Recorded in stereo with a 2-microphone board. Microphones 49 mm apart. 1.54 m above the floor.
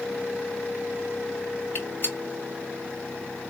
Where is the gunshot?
40° left (ahead or behind), 1.3 m.